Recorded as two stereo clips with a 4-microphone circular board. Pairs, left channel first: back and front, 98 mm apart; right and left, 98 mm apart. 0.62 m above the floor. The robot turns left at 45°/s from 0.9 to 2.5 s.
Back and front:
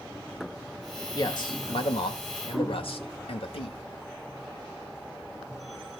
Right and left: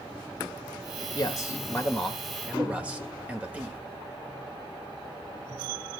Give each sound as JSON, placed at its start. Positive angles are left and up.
{"t": 1.1, "sound": "a man speaking", "azimuth_deg": -135, "distance_m": 1.7}